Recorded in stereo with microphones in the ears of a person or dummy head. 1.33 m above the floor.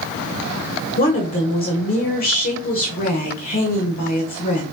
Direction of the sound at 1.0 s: 45° left (ahead or behind).